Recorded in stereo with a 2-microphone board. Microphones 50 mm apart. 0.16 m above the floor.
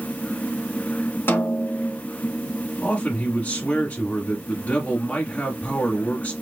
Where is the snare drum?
45° left (ahead or behind), 0.9 m.